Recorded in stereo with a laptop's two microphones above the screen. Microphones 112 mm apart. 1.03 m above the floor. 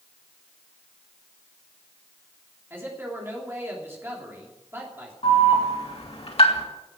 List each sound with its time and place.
2.7 s a man speaking: 20° right (ahead or behind), 3 m
5.2 s an alarm: 65° left (ahead or behind), 2.5 m